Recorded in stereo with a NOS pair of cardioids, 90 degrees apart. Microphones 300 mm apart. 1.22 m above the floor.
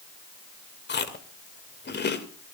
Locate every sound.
0.9 s chewing: 35° left, 2.5 m